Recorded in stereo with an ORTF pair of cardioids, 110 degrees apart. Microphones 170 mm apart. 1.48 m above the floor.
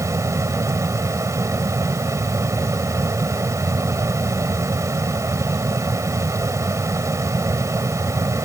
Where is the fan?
20° right.